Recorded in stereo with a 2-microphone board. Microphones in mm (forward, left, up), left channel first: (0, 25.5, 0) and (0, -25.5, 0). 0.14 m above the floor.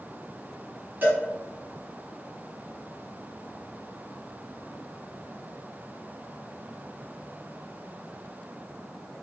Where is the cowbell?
35° right (ahead or behind), 1.9 m.